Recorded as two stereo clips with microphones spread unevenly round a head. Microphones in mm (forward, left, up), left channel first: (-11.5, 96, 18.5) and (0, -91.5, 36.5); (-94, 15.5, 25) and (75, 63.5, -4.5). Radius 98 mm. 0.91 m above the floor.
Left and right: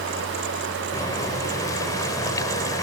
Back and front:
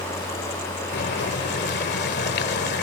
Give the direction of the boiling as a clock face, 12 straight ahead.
6 o'clock.